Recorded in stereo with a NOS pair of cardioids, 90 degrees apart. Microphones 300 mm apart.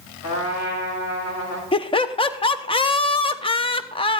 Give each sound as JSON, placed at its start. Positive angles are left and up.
{"t": 0.2, "sound": "a trumpet", "azimuth_deg": 65, "distance_m": 7.5}
{"t": 1.7, "sound": "laughter", "azimuth_deg": 15, "distance_m": 1.0}